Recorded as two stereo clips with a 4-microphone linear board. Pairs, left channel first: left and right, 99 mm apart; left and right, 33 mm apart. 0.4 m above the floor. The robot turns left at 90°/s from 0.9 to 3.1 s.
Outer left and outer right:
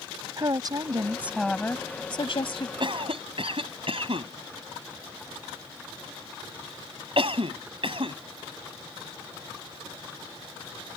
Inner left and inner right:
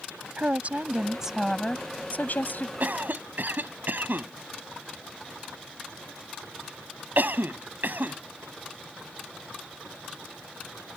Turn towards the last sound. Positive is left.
turn(degrees=-70)  # may be behind; listen again after turning